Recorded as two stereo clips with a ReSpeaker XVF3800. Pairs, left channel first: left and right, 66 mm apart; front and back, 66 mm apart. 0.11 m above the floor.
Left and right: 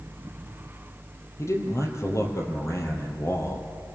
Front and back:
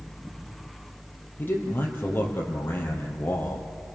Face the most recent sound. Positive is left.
turn(degrees=55)